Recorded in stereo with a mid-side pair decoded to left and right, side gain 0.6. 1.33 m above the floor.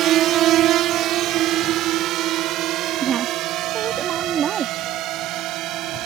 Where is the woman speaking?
45° right.